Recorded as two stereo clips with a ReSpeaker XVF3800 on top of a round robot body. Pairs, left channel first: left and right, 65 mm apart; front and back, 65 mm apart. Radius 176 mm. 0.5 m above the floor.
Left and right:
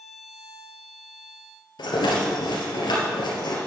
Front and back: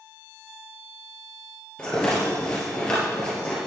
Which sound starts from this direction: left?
A rattle, at 1.8 s.